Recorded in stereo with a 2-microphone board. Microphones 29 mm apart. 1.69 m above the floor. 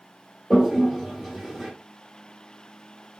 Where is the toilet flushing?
20° right (ahead or behind), 1.5 m.